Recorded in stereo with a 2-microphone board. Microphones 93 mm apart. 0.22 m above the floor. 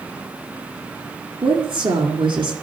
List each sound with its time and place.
1.4 s a woman speaking: 65° right (ahead or behind), 3 m